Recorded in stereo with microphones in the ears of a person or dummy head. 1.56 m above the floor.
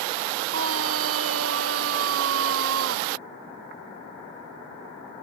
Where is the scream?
85° right.